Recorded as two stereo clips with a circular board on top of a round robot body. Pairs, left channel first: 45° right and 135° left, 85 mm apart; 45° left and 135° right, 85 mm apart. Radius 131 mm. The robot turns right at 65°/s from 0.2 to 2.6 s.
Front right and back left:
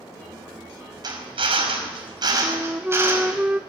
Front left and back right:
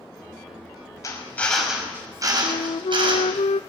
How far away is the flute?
About 0.6 m.